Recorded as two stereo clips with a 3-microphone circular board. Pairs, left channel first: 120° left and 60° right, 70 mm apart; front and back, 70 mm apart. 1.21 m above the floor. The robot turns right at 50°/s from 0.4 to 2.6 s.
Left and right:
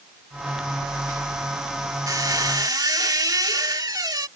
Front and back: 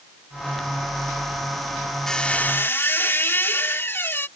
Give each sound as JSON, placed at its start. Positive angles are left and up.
{"t": 2.1, "sound": "a squeak", "azimuth_deg": -85}